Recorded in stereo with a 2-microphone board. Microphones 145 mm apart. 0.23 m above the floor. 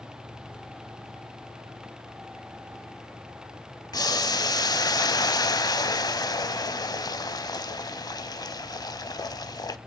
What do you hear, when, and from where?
3.9 s boiling: 25° left (ahead or behind), 0.7 m